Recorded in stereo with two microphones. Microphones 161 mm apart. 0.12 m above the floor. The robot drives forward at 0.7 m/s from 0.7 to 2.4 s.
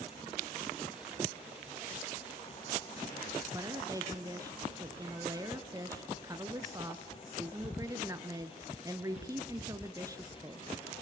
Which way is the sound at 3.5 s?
20° right (ahead or behind).